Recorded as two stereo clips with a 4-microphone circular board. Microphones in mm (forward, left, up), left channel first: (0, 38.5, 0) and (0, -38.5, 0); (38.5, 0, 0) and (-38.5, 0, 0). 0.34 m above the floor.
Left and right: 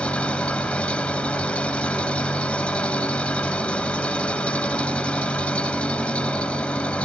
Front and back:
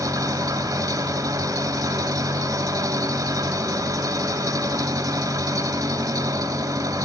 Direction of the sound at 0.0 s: 160° left.